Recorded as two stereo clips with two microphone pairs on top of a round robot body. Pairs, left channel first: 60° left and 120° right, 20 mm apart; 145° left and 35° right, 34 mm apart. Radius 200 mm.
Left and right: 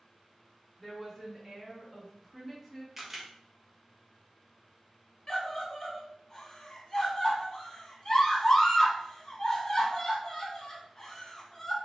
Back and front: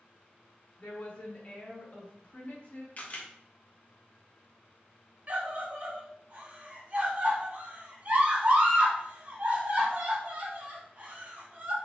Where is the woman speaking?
145° left, 1.4 m.